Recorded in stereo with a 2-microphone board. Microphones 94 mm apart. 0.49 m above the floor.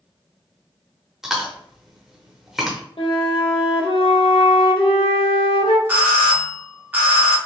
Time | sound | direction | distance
1.2 | chewing | 5° right (ahead or behind) | 0.8 m
3.0 | a flute | 70° left (ahead or behind) | 0.7 m
5.9 | a doorbell | 20° right (ahead or behind) | 1.1 m